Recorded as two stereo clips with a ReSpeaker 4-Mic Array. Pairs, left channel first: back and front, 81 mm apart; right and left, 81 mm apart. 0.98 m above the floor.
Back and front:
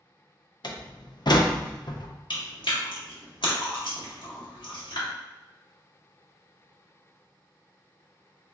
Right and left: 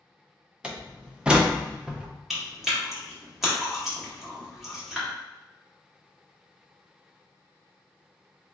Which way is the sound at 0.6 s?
165° left.